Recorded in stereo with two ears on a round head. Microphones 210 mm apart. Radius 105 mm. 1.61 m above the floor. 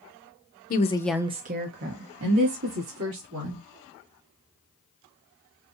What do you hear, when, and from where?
0.7 s a woman speaking: 40° left (ahead or behind), 0.8 m; by 3.6 s 80° right, 3 m